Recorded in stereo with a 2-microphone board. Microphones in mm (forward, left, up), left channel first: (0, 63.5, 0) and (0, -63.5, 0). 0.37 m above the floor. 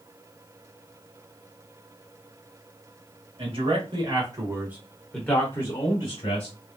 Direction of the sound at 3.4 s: 50° right (ahead or behind).